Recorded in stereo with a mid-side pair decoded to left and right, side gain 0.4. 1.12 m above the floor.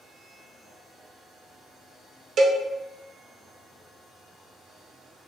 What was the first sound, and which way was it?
A cowbell, 60° right.